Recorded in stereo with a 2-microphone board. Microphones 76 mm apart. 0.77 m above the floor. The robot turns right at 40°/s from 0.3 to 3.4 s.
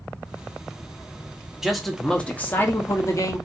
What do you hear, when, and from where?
1.6 s a man speaking: 5° right, 0.8 m; by 3.5 s 65° left, 0.8 m